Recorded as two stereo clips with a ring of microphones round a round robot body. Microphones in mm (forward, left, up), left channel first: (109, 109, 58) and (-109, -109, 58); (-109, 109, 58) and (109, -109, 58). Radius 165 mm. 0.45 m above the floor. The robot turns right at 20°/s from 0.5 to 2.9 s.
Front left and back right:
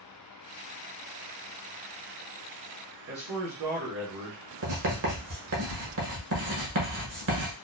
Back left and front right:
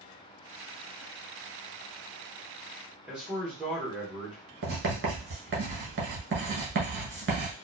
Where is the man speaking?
130° right, 1.0 m.